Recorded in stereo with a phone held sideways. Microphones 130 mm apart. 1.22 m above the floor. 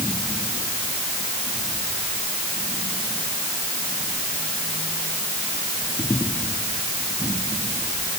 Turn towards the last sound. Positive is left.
No sound to turn to.